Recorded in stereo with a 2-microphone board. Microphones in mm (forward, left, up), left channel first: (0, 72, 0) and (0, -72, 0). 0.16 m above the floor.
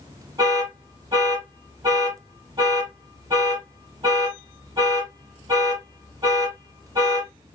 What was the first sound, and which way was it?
An alarm, 30° right (ahead or behind).